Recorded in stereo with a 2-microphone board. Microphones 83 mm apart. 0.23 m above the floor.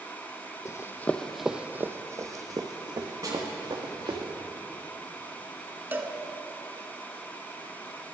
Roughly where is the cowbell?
Right.